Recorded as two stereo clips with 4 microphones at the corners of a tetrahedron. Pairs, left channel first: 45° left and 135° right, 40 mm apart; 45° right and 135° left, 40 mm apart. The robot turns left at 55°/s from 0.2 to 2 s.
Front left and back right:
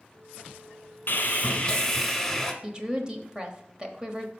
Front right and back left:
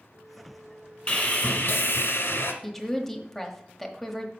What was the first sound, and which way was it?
Sawing, 10° left.